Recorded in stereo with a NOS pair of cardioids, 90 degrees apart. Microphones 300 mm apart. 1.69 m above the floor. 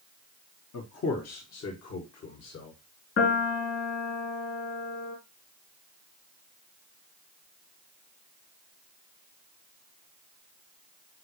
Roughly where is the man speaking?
Ahead left.